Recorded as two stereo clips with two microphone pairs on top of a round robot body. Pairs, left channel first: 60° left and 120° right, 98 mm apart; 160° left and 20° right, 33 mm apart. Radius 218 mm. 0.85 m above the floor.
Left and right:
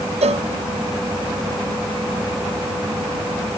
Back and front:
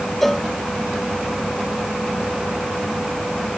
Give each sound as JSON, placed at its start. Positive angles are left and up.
{"t": 0.2, "sound": "a cowbell", "azimuth_deg": -120}